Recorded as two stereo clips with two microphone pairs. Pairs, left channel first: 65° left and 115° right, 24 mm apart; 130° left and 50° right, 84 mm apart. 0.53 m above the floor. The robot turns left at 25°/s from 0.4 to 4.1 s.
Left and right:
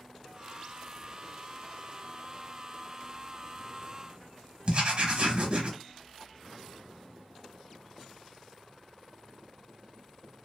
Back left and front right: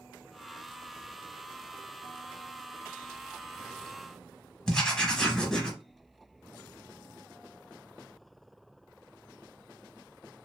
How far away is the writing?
About 0.8 m.